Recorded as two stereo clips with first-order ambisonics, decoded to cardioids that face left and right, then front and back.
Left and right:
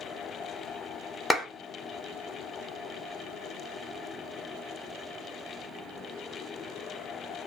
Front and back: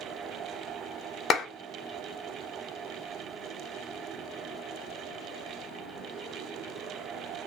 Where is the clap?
10° left, 0.6 m.